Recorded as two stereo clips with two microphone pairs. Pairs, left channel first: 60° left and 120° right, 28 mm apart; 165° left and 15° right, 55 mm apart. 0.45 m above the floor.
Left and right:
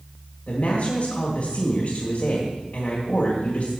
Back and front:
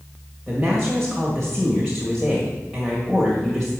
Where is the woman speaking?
80° left, 1.8 m.